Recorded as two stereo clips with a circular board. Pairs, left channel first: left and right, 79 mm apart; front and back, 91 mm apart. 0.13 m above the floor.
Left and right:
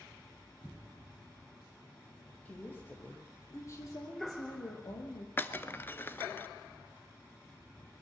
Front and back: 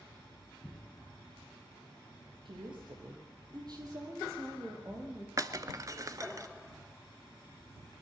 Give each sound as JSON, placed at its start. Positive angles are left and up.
{"t": 2.5, "sound": "a woman speaking", "azimuth_deg": 160, "distance_m": 5.5}
{"t": 5.4, "sound": "breaking glass", "azimuth_deg": 145, "distance_m": 1.0}